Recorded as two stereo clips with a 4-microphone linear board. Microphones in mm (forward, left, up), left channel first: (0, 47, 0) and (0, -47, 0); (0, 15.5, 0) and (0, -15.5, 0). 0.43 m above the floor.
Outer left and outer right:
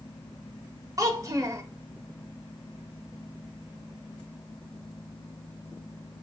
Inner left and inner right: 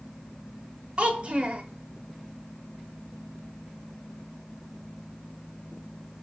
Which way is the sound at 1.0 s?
40° right (ahead or behind).